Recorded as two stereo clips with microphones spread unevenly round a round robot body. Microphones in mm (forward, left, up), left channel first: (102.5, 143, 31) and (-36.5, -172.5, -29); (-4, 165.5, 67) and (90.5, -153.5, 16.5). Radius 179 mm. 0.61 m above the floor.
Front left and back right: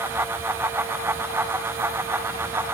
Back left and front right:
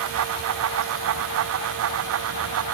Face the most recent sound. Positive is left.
No sound to turn to.